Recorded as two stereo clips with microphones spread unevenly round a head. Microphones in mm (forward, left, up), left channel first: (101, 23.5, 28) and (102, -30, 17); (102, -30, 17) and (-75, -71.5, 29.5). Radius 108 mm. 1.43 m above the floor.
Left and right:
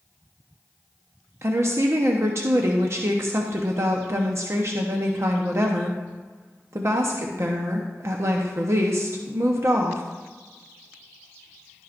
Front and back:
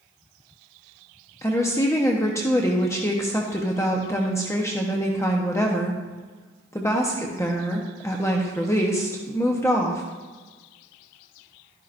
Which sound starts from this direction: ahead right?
A woman speaking, at 1.4 s.